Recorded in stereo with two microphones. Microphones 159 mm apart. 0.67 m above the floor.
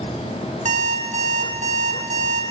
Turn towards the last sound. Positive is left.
turn(degrees=-55)  # may be behind; listen again after turning